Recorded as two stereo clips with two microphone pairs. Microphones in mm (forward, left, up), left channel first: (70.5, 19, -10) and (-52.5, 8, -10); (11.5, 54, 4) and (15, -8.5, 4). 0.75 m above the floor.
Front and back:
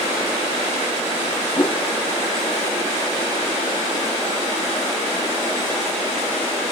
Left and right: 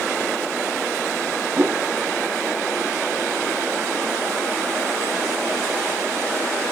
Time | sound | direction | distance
1.6 | a whoosh | 50° right | 0.6 m